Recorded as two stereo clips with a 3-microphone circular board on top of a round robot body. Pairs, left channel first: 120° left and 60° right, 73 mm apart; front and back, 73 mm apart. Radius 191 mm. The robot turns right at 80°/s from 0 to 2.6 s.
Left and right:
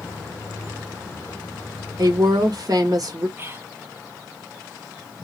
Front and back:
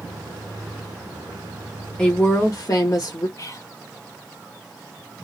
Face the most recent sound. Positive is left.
turn(degrees=-15)